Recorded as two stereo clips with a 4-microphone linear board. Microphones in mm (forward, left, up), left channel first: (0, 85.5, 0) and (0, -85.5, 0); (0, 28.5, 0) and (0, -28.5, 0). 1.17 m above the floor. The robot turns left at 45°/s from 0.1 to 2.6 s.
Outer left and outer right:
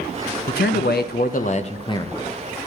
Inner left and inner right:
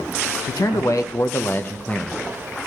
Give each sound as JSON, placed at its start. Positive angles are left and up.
{"t": 0.5, "sound": "a man speaking", "azimuth_deg": 90, "distance_m": 0.5}